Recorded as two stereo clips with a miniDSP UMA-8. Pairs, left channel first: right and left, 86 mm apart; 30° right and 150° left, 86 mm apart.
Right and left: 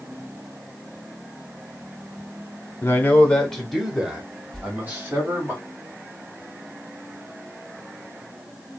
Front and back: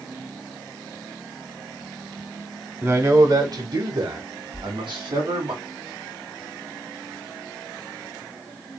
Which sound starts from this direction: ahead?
A whoosh, at 4.5 s.